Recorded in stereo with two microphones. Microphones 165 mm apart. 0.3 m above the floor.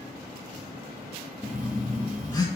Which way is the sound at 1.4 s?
25° left (ahead or behind).